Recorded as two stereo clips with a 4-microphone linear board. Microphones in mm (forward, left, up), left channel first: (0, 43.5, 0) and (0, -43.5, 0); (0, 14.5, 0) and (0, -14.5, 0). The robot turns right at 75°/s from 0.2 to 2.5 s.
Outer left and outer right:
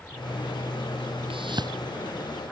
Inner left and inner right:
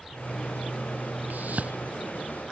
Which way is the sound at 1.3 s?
75° right (ahead or behind).